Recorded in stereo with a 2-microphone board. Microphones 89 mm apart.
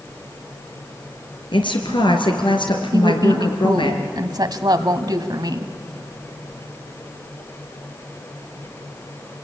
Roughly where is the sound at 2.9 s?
Right.